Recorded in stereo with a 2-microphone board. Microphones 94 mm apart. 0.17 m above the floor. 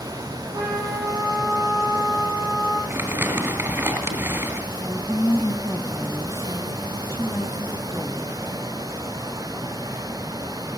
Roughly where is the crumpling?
Right.